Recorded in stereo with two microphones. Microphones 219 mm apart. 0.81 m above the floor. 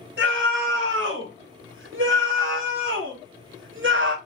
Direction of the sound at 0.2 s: 65° right (ahead or behind).